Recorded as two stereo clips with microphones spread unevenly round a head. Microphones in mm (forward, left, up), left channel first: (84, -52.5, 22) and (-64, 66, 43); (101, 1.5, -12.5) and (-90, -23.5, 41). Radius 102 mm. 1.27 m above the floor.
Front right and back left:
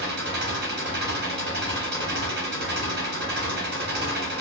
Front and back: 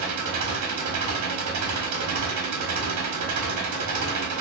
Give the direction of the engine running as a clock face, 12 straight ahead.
6 o'clock.